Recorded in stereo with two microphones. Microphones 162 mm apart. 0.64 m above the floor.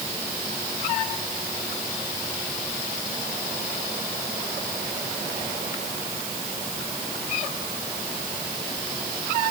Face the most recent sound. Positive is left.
No sound to turn to.